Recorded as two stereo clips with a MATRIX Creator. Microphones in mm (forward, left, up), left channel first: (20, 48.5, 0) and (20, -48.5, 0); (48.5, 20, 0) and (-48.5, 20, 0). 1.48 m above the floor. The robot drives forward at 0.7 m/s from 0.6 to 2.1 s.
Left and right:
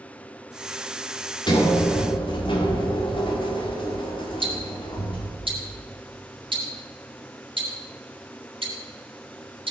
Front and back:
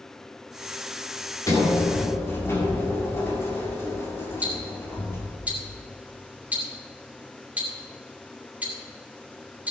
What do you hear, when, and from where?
1.5 s a sliding door: 55° left, 2.5 m; by 5.3 s 65° left, 2.5 m
4.4 s ticking: 105° right, 2.5 m